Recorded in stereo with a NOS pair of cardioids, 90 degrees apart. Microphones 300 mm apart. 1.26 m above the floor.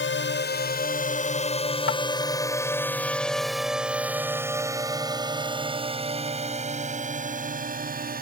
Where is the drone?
35° left; by 8.2 s 30° right.